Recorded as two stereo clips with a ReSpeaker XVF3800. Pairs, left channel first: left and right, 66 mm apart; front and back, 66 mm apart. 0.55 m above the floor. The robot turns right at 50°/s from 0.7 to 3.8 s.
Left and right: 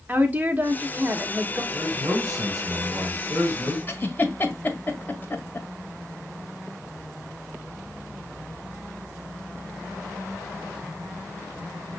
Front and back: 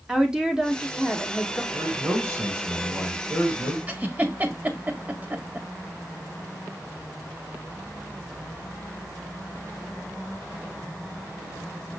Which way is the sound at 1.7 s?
145° right.